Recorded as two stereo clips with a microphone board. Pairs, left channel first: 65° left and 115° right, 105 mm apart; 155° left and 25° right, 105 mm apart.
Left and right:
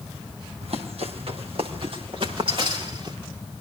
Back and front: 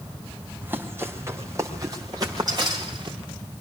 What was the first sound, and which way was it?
Running footsteps, 95° right.